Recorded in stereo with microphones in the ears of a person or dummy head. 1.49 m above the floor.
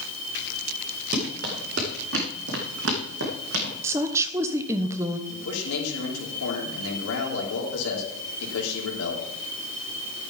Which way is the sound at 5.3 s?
85° left.